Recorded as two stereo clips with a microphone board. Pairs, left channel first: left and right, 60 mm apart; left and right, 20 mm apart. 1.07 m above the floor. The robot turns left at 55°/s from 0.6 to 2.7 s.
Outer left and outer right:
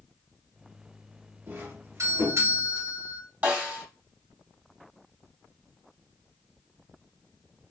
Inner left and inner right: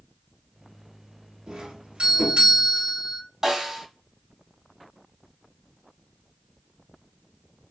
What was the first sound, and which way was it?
A doorbell, 35° right.